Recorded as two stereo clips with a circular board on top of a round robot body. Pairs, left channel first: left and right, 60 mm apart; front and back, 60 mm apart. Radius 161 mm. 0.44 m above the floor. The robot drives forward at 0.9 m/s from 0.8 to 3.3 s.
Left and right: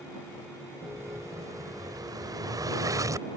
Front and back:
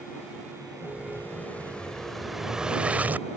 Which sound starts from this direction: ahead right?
An explosion, at 0.8 s.